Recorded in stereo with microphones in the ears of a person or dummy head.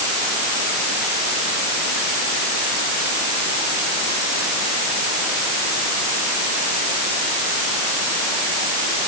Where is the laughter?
No laughter in this recording.